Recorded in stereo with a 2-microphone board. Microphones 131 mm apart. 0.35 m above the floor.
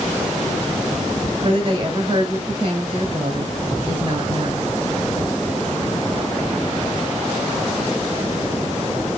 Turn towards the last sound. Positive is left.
turn(degrees=-40)  # may be behind; listen again after turning